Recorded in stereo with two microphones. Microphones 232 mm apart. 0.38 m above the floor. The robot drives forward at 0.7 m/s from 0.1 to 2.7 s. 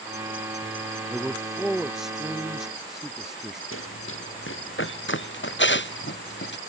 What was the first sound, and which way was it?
A man speaking, centre (ahead or behind).